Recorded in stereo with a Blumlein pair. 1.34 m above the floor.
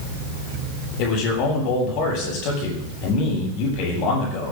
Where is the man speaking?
40° left, 8.5 m.